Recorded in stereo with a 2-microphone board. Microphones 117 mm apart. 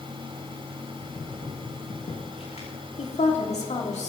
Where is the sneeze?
I don't hear a sneeze.